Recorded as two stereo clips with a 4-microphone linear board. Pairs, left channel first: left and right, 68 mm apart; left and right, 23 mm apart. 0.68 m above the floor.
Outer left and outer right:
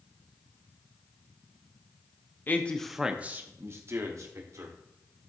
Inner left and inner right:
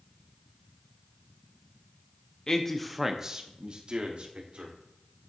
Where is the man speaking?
30° left (ahead or behind), 0.6 m; by 4.7 s 55° right (ahead or behind), 1.6 m.